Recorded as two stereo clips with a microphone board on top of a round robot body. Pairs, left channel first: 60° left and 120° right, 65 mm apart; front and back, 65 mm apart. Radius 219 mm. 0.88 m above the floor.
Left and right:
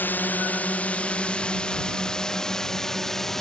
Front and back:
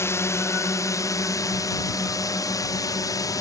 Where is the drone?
15° left; by 3.4 s 25° right.